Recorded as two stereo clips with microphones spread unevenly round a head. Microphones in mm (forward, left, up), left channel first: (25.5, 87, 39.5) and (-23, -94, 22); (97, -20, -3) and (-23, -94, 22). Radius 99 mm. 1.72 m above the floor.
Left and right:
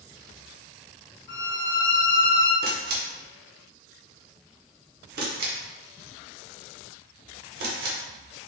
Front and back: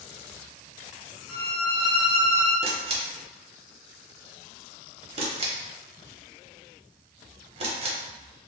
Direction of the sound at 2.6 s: 140° right.